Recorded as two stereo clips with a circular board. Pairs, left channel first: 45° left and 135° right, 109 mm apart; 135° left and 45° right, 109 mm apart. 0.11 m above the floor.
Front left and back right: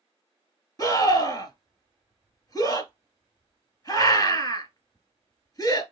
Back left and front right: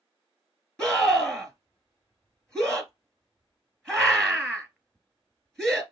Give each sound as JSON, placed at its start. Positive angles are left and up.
{"t": 0.8, "sound": "a scream", "azimuth_deg": 55, "distance_m": 1.6}